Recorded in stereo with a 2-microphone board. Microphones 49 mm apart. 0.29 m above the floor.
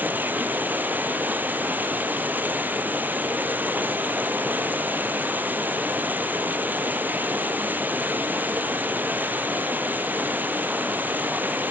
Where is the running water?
40° right (ahead or behind), 1.9 m.